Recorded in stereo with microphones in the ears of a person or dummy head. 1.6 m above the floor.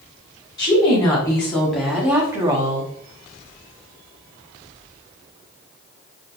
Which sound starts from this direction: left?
A woman speaking, at 0.6 s.